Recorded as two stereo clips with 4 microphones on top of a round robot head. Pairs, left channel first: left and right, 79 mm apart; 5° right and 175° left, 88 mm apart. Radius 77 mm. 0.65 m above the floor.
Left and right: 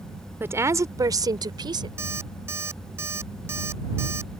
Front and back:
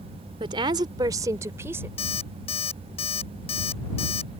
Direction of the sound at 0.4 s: 150° right.